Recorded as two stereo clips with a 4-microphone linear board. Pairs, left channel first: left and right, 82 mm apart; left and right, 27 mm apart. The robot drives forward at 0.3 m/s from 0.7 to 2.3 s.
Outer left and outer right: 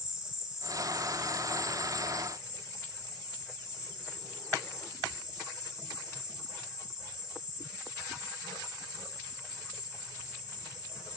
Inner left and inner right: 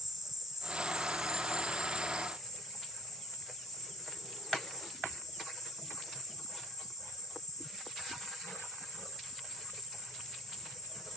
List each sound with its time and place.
0.0 s an insect: 10° right (ahead or behind), 0.7 m; by 11.2 s 5° right (ahead or behind), 1.2 m